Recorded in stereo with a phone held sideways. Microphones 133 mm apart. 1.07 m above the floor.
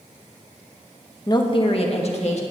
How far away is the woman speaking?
About 0.9 m.